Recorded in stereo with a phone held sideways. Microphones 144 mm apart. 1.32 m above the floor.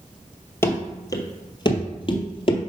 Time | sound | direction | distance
0.6 | running footsteps | 15° left (ahead or behind) | 1.5 m